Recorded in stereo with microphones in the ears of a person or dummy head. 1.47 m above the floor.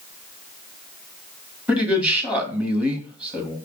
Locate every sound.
1.7 s a man speaking: 5° right (ahead or behind), 1.2 m